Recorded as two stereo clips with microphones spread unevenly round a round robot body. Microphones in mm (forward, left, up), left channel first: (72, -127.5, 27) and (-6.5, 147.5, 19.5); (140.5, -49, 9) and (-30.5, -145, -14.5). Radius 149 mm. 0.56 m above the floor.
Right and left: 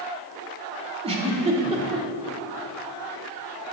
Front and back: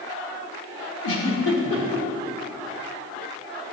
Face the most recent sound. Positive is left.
turn(degrees=35)